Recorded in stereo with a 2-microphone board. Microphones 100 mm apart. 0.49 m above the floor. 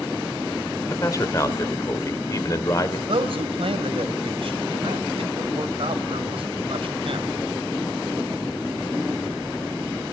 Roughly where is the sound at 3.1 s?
Right.